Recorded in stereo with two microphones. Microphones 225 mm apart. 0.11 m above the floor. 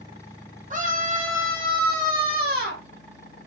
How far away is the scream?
About 3.5 m.